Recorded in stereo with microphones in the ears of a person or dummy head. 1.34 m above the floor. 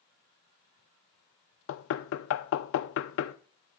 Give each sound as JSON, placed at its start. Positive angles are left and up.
{"t": 1.7, "sound": "knocking", "side_deg": 70, "distance_m": 0.5}